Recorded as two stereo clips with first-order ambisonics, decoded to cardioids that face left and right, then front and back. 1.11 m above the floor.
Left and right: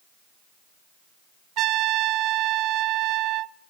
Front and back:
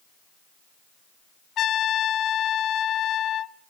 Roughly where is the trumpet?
Ahead right.